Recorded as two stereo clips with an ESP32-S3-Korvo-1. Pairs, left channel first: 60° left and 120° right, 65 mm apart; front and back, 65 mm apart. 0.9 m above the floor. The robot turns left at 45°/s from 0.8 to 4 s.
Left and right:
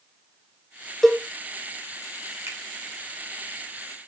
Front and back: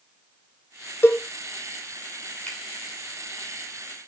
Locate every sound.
1.0 s a cowbell: 25° right, 0.7 m; by 1.2 s 35° right, 0.7 m
2.5 s a finger snap: 70° right, 2.5 m; by 2.6 s 75° right, 2.5 m